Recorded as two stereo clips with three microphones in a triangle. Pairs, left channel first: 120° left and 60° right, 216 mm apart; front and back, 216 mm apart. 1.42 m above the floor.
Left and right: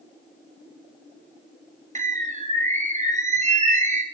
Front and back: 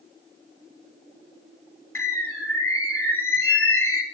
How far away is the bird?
About 1.2 m.